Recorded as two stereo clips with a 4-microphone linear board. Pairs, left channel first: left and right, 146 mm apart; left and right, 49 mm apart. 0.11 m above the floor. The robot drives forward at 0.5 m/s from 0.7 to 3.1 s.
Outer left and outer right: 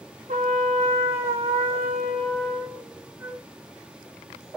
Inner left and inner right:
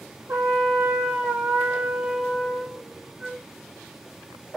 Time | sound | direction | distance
0.3 | a trumpet | 55° right (ahead or behind) | 0.9 m
3.2 | a flute | 15° right (ahead or behind) | 0.8 m